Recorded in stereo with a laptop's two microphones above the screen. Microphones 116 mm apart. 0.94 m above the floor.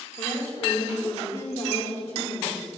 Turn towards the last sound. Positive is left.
turn(degrees=70)  # may be behind; listen again after turning